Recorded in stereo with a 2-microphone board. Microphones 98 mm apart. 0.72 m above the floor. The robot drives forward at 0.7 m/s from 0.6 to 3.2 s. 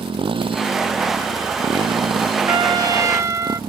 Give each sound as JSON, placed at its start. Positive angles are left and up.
{"t": 0.0, "sound": "a motorcycle", "side_deg": -65}
{"t": 2.5, "sound": "a trumpet", "side_deg": -55}